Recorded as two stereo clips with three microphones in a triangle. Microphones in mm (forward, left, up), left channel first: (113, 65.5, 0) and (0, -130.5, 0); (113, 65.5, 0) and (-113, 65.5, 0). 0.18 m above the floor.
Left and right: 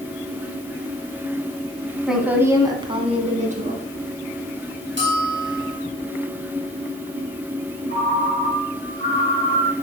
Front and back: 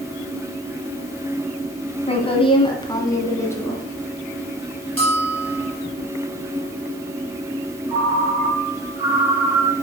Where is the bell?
160° right, 3.5 m.